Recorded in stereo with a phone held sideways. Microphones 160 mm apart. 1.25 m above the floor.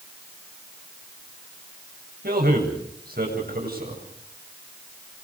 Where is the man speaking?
70° right (ahead or behind), 8 m.